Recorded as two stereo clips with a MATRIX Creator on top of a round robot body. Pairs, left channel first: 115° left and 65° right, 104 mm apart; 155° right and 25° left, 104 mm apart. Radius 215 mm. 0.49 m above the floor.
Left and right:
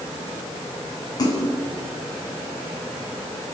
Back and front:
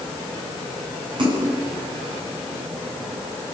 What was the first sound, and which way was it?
A splash, 60° left.